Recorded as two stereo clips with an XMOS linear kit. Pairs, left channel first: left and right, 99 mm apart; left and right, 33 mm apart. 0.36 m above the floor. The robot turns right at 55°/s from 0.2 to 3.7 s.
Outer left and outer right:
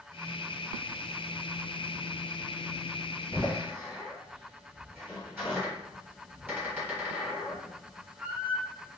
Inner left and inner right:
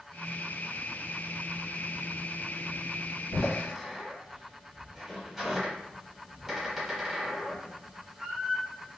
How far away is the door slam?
About 1.4 m.